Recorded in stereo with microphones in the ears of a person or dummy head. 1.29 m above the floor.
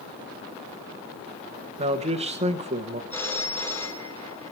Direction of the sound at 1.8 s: 40° right (ahead or behind).